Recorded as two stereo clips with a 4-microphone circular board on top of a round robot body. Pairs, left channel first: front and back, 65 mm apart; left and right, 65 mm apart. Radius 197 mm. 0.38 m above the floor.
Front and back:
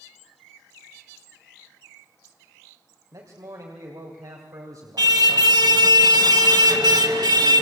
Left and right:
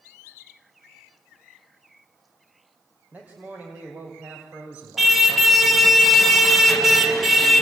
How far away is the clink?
I don't hear a clink.